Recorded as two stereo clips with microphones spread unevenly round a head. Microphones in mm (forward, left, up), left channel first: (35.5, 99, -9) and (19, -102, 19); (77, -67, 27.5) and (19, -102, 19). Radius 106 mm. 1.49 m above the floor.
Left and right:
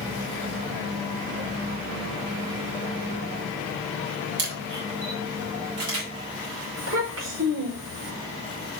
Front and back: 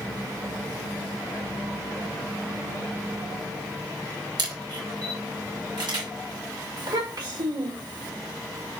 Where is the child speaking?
130° right, 5 m.